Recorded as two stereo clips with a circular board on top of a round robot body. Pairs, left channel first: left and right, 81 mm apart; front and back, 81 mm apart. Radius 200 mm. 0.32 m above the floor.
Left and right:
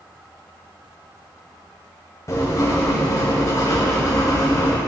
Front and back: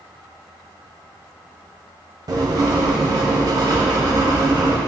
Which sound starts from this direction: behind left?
Writing, at 2.3 s.